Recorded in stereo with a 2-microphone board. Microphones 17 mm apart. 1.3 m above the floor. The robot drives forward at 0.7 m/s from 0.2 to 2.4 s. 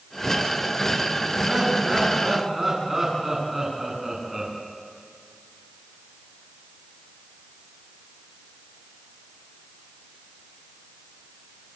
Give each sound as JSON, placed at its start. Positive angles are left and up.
{"t": 1.4, "sound": "laughter", "side_deg": -20, "distance_m": 10.0}